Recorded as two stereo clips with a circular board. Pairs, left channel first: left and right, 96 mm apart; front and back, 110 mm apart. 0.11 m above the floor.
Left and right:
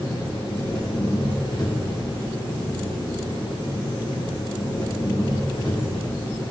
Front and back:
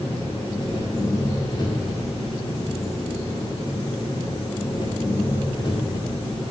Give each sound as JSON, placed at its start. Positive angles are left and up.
{"t": 0.0, "sound": "an engine running", "azimuth_deg": 50, "distance_m": 7.5}